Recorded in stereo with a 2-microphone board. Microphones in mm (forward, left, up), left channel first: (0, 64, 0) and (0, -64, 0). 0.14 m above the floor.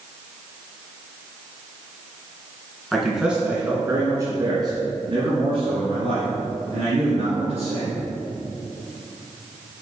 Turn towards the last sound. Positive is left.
turn(degrees=-55)  # may be behind; listen again after turning